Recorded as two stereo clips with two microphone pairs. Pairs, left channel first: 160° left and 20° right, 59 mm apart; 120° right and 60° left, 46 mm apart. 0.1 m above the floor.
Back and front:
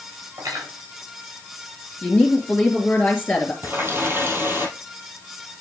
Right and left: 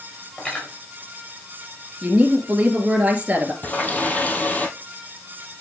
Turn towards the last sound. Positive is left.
turn(degrees=-70)